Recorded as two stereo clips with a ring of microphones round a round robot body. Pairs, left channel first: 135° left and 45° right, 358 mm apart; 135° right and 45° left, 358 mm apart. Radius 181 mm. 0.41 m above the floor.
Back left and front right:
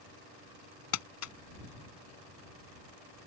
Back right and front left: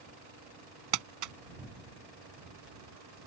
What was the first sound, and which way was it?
Crumpling, 85° left.